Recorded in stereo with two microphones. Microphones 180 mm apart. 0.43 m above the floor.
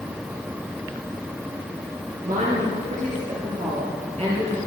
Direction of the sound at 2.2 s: 45° right (ahead or behind).